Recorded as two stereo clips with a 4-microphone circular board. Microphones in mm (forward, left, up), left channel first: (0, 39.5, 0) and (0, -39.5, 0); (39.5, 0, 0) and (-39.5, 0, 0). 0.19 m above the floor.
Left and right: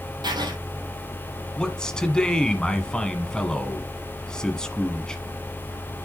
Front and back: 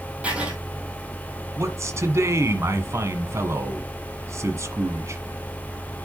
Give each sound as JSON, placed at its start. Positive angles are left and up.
{"t": 0.2, "sound": "writing", "azimuth_deg": -105, "distance_m": 3.0}
{"t": 1.6, "sound": "a man speaking", "azimuth_deg": 165, "distance_m": 1.5}